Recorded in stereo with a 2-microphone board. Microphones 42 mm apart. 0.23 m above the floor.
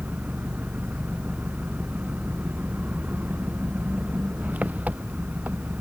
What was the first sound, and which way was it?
An engine running, 35° right (ahead or behind).